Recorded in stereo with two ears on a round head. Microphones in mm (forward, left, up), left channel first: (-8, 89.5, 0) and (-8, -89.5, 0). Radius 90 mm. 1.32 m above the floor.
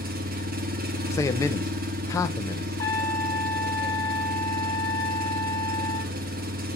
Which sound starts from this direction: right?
An engine running, at 0.0 s.